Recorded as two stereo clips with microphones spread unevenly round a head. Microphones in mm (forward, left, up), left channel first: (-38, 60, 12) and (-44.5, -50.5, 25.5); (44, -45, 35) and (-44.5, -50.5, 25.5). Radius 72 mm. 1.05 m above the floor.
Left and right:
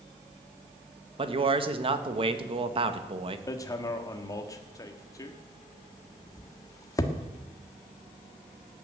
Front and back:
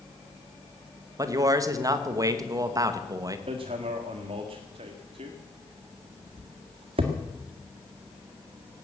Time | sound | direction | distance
1.2 | a man speaking | 135° right | 1.6 m
3.5 | hammering | 145° left | 1.6 m